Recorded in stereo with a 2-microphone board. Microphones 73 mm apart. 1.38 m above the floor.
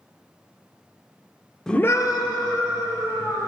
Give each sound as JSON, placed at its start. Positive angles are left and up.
{"t": 1.7, "sound": "a scream", "side_deg": 5, "distance_m": 0.7}